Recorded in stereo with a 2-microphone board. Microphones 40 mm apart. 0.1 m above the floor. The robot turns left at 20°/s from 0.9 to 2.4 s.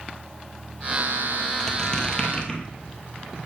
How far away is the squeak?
About 1.7 m.